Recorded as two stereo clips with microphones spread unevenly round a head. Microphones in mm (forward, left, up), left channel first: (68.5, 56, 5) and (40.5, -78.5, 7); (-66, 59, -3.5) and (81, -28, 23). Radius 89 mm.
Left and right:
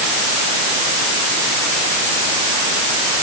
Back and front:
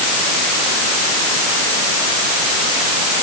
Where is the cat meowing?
No cat meowing in this recording.